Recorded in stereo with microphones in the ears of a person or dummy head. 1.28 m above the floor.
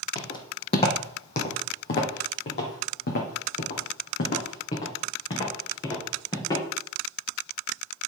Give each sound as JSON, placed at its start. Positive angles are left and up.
{"t": 0.1, "sound": "footsteps", "side_deg": 30, "distance_m": 2.5}